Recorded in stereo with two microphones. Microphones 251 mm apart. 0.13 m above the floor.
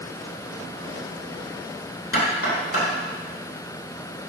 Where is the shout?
No shout in this recording.